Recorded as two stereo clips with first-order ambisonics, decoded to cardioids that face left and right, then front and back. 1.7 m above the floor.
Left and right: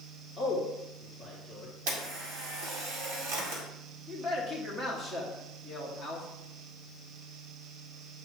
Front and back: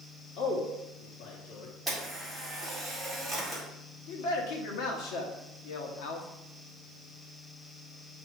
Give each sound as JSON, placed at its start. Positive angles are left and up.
{"t": 0.4, "sound": "a man speaking", "azimuth_deg": 0, "distance_m": 1.6}
{"t": 1.9, "sound": "a camera shutter", "azimuth_deg": -85, "distance_m": 1.9}
{"t": 4.1, "sound": "a man speaking", "azimuth_deg": -10, "distance_m": 1.5}